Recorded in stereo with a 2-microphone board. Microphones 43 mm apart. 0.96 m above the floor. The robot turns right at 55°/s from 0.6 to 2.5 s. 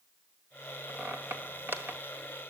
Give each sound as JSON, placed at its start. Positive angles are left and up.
{"t": 0.9, "sound": "a squeak", "side_deg": -55, "distance_m": 1.9}